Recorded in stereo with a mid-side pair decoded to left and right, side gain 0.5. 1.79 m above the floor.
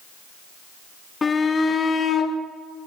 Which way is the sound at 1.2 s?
30° left.